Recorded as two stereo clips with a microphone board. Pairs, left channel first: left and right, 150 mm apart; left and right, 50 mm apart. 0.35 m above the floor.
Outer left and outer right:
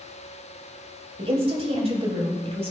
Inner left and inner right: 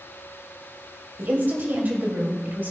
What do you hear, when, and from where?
1.2 s a woman speaking: 40° right (ahead or behind), 2.0 m